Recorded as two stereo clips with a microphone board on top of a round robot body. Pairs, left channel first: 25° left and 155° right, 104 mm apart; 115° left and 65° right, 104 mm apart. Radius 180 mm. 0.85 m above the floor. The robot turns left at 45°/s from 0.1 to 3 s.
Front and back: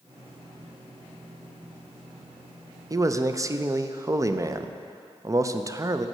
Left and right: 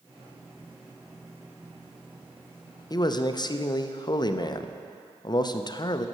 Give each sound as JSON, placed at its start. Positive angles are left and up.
{"t": 2.9, "sound": "a man speaking", "azimuth_deg": 155, "distance_m": 0.7}